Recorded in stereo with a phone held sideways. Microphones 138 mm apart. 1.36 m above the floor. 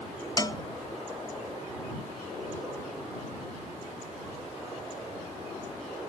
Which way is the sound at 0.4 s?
25° left (ahead or behind).